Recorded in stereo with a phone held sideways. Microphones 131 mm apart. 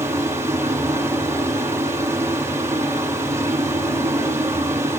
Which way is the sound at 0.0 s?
20° right (ahead or behind).